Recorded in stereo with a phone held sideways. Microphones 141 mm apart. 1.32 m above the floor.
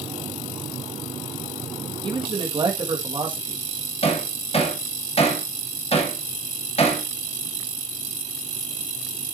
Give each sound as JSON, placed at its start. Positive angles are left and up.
{"t": 2.0, "sound": "a man speaking", "side_deg": -35, "distance_m": 1.8}
{"t": 4.0, "sound": "hammering", "side_deg": 45, "distance_m": 2.5}